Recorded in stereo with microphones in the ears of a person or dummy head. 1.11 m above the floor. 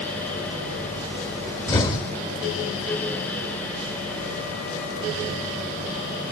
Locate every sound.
1.7 s an explosion: 30° left (ahead or behind), 1.0 m